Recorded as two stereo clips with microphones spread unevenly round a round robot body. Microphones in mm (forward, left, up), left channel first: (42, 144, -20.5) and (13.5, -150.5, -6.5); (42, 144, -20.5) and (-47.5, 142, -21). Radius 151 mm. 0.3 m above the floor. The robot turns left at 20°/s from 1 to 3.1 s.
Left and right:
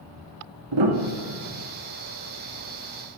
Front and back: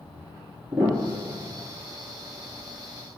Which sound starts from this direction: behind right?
A piano, at 0.7 s.